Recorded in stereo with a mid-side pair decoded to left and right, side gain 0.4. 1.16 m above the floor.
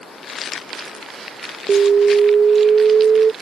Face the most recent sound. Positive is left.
turn(degrees=-50)